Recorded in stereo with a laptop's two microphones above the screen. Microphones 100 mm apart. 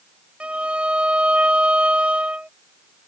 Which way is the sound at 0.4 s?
10° right (ahead or behind).